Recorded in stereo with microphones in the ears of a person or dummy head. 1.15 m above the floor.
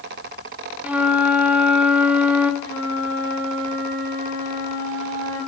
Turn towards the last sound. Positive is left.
turn(degrees=70)  # may be behind; listen again after turning